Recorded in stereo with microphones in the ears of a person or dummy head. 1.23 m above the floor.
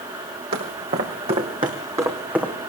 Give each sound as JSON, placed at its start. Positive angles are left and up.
{"t": 0.5, "sound": "footsteps", "side_deg": -55, "distance_m": 3.0}